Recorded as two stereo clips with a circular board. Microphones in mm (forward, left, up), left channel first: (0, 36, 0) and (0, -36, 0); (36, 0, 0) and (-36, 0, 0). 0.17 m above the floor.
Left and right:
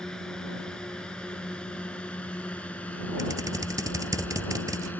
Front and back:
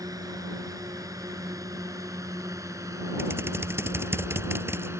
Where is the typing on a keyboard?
125° right.